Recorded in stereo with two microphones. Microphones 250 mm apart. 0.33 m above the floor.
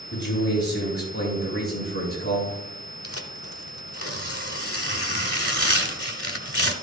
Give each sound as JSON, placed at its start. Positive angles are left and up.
{"t": 0.1, "sound": "a man speaking", "side_deg": 45, "distance_m": 5.5}
{"t": 3.0, "sound": "tearing paper", "side_deg": 65, "distance_m": 1.0}